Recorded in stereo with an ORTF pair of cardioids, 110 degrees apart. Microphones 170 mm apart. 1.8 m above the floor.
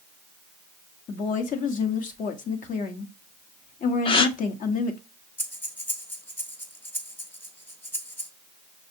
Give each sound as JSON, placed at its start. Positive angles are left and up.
{"t": 1.1, "sound": "a woman speaking", "azimuth_deg": 55, "distance_m": 1.1}
{"t": 4.0, "sound": "a gasp", "azimuth_deg": 35, "distance_m": 0.6}
{"t": 5.4, "sound": "breathing", "azimuth_deg": 10, "distance_m": 0.9}